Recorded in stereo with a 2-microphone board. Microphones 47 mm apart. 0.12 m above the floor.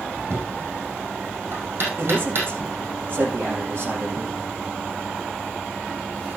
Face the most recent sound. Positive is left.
turn(degrees=-40)  # may be behind; listen again after turning